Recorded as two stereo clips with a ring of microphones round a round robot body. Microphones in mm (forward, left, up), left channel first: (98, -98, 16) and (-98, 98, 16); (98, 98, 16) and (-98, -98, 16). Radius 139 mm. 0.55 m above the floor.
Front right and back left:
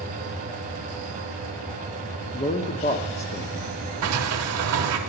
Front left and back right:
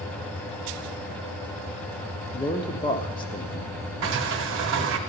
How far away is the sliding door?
About 0.8 m.